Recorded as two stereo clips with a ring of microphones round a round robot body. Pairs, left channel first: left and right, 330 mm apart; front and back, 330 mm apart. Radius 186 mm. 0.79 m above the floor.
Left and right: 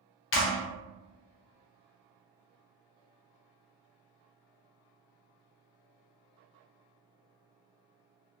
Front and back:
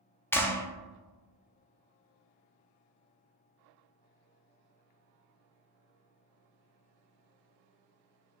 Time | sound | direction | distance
0.3 | a clap | 80° left | 0.5 m